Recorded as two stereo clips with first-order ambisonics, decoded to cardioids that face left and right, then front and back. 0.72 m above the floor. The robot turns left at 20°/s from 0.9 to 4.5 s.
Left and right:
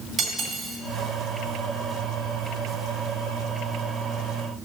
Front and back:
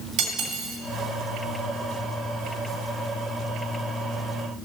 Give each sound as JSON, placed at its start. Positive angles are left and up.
{"t": 0.2, "sound": "cutlery clinking", "azimuth_deg": -160, "distance_m": 2.5}